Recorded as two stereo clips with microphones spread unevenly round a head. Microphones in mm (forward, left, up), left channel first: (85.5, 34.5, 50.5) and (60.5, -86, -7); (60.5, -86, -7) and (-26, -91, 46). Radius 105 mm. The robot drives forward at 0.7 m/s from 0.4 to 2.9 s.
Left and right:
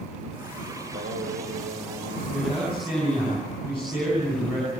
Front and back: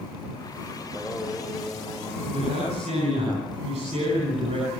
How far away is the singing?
About 6 m.